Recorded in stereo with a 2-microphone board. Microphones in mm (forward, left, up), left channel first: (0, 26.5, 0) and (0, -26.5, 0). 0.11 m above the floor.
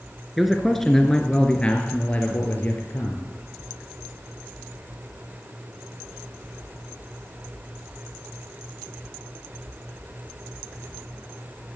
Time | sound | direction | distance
0.4 | a man speaking | centre (ahead or behind) | 1.8 m